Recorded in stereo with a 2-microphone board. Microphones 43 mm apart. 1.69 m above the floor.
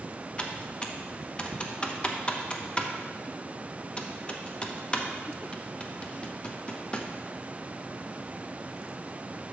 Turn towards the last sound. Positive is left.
turn(degrees=20)  # may be behind; listen again after turning